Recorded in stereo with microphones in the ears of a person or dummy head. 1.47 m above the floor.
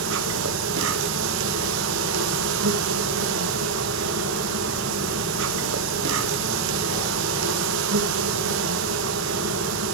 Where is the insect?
75° right (ahead or behind), 1.1 m.